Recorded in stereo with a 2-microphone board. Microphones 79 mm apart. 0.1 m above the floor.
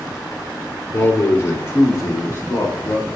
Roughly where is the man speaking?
Left.